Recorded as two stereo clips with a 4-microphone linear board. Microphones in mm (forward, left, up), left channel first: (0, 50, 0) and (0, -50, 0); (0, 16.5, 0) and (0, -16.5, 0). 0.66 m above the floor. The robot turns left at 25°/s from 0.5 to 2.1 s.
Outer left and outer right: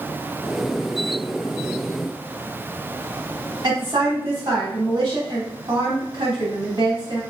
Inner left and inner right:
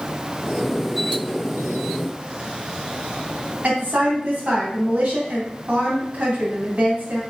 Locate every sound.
3.6 s a woman speaking: 45° right (ahead or behind), 4 m